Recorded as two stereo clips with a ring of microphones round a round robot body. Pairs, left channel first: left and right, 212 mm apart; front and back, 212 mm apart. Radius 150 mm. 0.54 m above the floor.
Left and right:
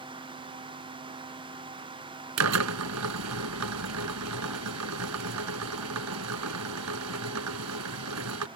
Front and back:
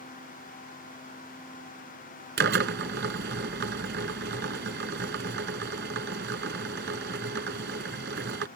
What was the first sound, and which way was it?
A drill, 120° right.